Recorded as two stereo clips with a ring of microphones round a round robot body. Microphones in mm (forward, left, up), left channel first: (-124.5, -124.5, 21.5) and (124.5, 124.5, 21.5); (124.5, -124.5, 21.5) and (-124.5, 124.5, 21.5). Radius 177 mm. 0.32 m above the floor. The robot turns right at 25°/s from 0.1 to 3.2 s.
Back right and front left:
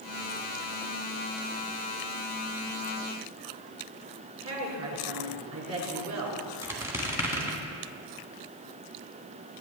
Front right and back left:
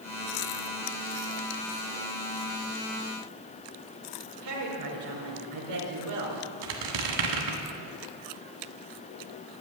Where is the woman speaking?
100° left, 4 m.